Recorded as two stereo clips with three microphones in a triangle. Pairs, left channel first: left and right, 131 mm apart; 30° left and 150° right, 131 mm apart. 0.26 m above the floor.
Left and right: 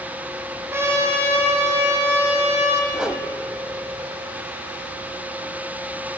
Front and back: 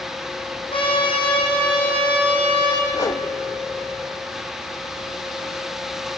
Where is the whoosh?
10° right, 0.8 m.